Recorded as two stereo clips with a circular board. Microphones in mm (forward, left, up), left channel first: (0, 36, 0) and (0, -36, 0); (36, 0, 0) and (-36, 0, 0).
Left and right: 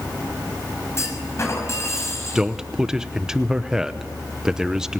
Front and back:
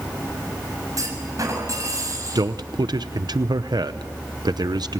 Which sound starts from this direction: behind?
A man speaking, at 2.4 s.